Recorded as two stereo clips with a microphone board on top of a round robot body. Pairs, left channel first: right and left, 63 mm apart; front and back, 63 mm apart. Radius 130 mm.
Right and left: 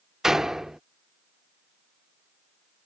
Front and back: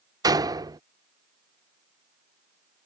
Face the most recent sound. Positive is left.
turn(degrees=175)